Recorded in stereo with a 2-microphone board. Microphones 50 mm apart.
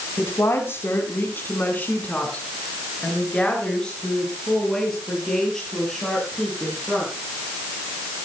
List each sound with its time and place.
0.2 s a woman speaking: 60° left (ahead or behind), 3 m; by 7.1 s 5° left (ahead or behind), 10.5 m